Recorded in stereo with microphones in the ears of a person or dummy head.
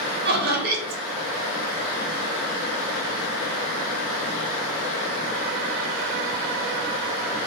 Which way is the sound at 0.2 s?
50° right (ahead or behind).